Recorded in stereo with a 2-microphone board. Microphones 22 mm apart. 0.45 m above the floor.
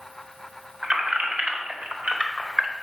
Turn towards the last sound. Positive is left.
turn(degrees=-60)  # may be behind; listen again after turning